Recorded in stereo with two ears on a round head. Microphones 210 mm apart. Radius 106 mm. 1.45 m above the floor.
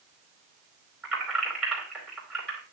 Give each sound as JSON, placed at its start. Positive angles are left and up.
{"t": 1.0, "sound": "keys jangling", "side_deg": 0, "distance_m": 4.5}